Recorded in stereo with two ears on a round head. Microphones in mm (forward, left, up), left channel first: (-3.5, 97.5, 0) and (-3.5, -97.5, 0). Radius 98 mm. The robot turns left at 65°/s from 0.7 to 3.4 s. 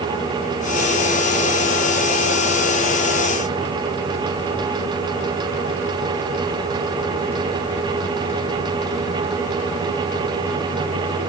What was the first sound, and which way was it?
Only background noise.